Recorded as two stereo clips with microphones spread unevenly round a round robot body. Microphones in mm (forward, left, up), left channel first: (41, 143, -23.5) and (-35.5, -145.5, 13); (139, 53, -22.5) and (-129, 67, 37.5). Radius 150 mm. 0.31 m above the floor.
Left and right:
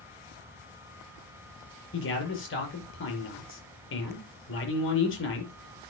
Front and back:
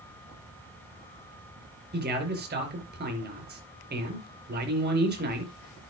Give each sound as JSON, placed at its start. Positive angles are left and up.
{"t": 1.9, "sound": "a man speaking", "azimuth_deg": 125, "distance_m": 5.5}